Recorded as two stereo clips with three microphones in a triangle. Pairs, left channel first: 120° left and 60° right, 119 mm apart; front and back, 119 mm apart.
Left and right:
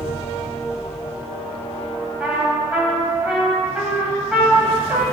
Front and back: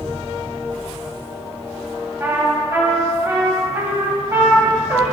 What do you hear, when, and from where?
2.2 s a trumpet: 130° right, 1.6 m